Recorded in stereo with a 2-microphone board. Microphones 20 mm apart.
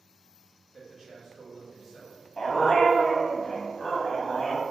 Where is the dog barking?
40° left (ahead or behind), 0.9 m.